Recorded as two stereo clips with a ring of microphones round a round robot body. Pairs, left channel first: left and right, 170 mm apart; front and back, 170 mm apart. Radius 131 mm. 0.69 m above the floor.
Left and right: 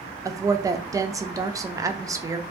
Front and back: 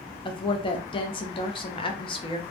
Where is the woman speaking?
30° right, 0.5 m.